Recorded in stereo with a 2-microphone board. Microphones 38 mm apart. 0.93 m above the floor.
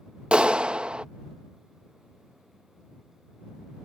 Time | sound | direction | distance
0.3 | a clap | 30° right (ahead or behind) | ?